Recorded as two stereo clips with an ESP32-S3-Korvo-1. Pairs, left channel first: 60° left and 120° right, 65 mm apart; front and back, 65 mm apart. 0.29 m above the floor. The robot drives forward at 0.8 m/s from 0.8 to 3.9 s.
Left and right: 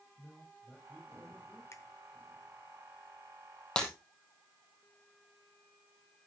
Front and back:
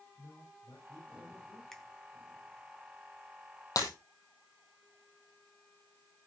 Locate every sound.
0.2 s a man speaking: 15° right, 8 m
1.7 s a finger snap: 80° left, 2 m; by 1.8 s 85° left, 2 m
3.8 s breaking glass: 15° right, 3.5 m